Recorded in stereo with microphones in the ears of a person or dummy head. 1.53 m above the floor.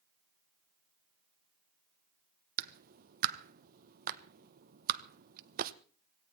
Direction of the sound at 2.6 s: 50° right (ahead or behind).